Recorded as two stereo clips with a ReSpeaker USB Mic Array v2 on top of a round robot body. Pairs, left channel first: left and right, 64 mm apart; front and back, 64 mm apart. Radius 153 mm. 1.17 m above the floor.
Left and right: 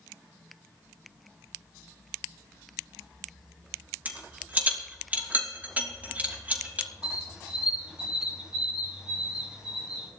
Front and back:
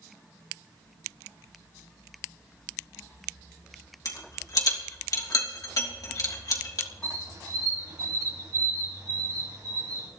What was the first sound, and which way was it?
A rattle, 25° right.